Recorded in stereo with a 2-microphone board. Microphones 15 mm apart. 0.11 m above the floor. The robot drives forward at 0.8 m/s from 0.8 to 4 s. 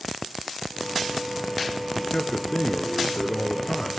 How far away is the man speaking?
About 1.8 m.